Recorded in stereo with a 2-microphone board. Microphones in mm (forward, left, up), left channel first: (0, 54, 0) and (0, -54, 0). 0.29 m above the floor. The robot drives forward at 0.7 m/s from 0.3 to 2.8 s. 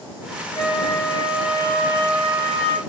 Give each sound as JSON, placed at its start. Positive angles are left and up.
{"t": 0.6, "sound": "a flute", "side_deg": 40, "distance_m": 0.9}